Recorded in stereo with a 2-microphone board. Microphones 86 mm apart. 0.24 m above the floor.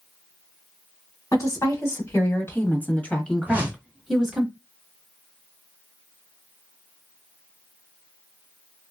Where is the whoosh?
20° right (ahead or behind), 1.5 m.